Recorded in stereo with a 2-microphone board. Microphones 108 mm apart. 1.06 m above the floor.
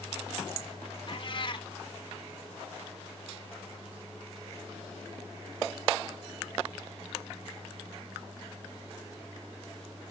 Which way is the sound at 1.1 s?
45° left (ahead or behind).